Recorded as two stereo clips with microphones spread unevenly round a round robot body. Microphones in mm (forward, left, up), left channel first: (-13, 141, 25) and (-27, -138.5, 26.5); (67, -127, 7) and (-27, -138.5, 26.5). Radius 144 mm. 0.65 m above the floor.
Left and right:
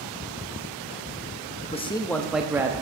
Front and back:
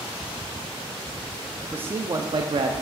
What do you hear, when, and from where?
1.6 s a man speaking: 90° left, 0.5 m; by 2.7 s 170° right, 0.7 m